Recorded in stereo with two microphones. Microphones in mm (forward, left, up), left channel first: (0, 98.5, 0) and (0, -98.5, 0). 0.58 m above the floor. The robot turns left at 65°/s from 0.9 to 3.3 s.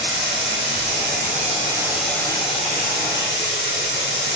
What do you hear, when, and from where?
0.0 s running water: 105° right, 1.8 m; by 4.4 s 95° left, 1.8 m